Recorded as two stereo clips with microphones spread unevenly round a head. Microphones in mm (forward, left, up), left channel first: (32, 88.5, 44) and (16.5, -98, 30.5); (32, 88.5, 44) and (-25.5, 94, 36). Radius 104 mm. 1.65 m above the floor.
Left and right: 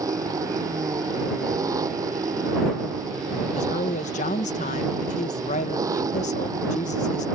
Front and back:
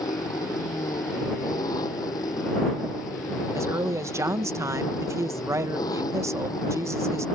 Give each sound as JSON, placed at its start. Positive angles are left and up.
{"t": 0.0, "sound": "an engine running", "azimuth_deg": -20}
{"t": 3.5, "sound": "a woman speaking", "azimuth_deg": 140}